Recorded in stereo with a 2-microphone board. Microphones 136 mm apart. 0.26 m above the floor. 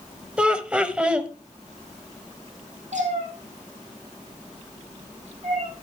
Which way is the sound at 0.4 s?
10° right (ahead or behind).